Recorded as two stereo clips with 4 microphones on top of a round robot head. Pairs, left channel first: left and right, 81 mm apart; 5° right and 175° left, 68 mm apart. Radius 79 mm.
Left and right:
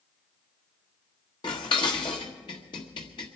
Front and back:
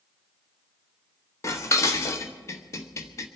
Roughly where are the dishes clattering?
Ahead left.